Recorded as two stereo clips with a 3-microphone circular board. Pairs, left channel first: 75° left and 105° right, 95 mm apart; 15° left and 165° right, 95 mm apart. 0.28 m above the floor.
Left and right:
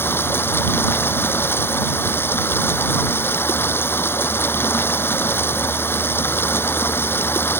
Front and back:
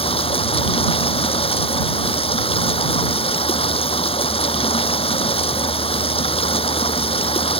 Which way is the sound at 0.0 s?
10° left.